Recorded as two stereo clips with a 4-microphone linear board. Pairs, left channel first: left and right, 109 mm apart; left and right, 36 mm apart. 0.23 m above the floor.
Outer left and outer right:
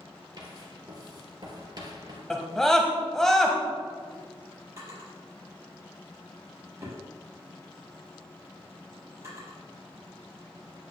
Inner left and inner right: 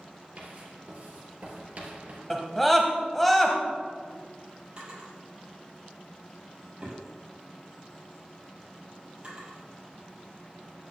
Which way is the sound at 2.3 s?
5° left (ahead or behind).